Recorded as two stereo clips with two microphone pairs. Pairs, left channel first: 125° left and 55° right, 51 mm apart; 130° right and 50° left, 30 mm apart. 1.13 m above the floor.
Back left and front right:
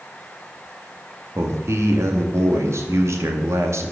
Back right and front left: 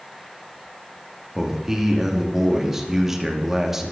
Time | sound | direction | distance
1.4 | a man speaking | 30° right | 2 m